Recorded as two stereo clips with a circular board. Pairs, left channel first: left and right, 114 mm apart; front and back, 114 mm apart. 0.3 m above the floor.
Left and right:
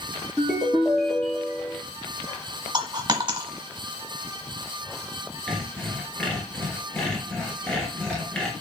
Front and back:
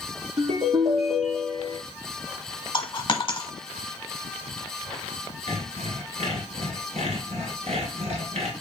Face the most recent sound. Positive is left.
turn(degrees=170)